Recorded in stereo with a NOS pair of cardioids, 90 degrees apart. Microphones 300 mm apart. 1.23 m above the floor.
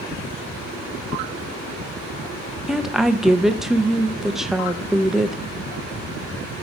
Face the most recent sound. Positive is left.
turn(degrees=0)